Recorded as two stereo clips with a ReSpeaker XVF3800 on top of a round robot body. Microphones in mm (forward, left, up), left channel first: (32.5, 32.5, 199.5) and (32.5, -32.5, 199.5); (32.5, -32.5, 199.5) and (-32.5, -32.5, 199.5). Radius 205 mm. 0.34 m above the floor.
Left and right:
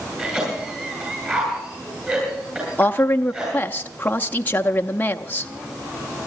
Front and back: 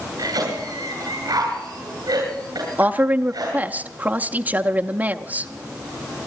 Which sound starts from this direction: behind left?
A woman speaking, at 2.8 s.